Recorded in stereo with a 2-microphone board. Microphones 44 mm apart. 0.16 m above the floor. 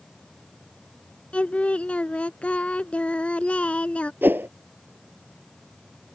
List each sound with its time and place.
1.3 s singing: 30° left (ahead or behind)
4.2 s a whoosh: 50° right (ahead or behind)